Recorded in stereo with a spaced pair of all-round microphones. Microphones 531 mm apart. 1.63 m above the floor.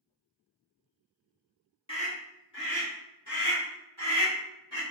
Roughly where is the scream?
Centre.